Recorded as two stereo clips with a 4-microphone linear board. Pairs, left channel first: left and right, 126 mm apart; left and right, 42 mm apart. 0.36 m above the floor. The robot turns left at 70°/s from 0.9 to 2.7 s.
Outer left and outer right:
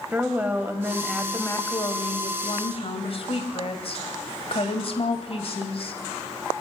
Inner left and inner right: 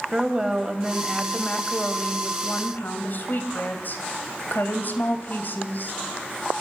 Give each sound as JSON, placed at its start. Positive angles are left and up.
{"t": 0.1, "sound": "a woman speaking", "azimuth_deg": -165, "distance_m": 2.5}